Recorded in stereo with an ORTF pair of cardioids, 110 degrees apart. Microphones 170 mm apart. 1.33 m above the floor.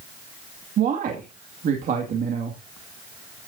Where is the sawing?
No sawing in this recording.